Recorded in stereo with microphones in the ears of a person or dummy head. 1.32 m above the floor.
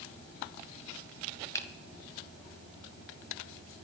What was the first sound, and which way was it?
A finger snap, 15° left (ahead or behind).